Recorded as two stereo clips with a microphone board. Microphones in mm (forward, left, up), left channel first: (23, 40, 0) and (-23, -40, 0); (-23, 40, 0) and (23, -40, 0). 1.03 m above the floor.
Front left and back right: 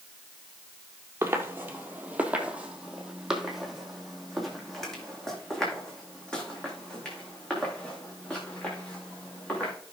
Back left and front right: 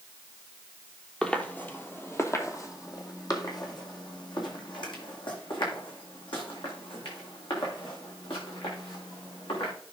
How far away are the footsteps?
About 1.3 m.